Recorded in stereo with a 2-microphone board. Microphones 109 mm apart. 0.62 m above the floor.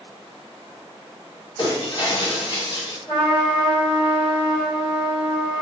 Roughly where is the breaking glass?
Left.